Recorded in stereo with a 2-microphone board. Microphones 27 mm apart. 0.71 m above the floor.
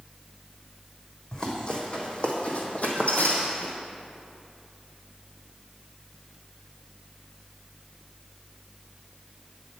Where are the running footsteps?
30° left (ahead or behind), 1.9 m; by 3.7 s 65° left (ahead or behind), 1.6 m.